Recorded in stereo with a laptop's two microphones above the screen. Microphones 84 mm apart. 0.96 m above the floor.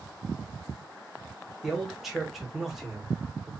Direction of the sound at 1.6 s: 5° right (ahead or behind).